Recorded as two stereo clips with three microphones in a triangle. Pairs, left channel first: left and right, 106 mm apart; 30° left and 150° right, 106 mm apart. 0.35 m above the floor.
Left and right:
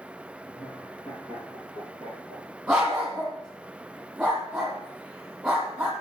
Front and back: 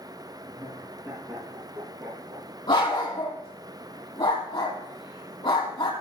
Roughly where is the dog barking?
Ahead.